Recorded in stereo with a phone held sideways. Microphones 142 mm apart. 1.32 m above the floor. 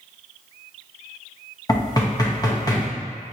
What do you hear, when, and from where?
1.7 s knocking: 25° left (ahead or behind), 0.8 m